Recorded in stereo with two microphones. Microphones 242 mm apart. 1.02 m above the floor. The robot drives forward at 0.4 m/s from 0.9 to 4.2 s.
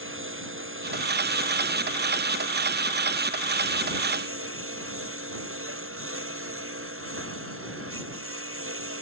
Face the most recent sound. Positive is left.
turn(degrees=-60)  # may be behind; listen again after turning